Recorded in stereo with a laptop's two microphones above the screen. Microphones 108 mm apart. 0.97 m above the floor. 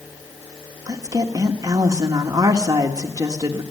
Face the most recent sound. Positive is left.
turn(degrees=-30)  # may be behind; listen again after turning